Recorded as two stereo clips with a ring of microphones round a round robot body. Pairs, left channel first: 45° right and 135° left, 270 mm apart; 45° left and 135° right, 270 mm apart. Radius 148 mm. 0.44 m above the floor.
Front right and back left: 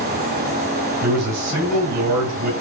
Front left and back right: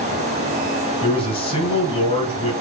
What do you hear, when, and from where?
1.0 s a man speaking: 115° left, 4.5 m